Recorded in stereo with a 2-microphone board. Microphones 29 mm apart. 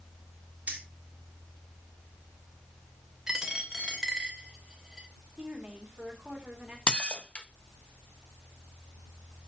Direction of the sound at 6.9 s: 35° left (ahead or behind).